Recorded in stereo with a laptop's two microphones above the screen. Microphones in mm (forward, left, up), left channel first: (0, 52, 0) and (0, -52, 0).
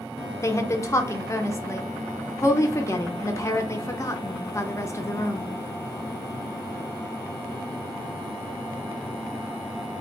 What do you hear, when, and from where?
0.4 s a woman speaking: 30° left (ahead or behind), 0.5 m